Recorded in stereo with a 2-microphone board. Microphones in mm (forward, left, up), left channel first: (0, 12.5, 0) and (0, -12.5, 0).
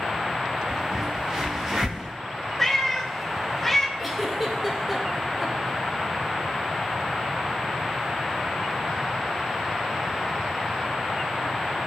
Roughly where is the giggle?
Centre.